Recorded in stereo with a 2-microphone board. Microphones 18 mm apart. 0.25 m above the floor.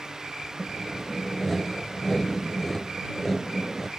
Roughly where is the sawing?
Centre.